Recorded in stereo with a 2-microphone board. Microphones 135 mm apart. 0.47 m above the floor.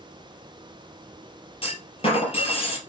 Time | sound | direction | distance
1.6 | a clunk | 45° left (ahead or behind) | 2.5 m